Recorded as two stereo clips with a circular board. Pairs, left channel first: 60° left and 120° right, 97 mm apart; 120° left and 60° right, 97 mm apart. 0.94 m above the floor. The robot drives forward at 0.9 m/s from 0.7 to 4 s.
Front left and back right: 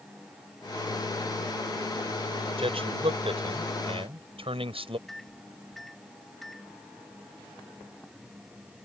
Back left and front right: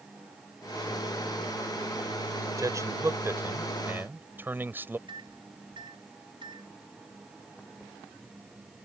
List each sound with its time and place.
2.6 s a man speaking: 115° right; by 5.0 s 130° right
5.1 s a microwave: 30° right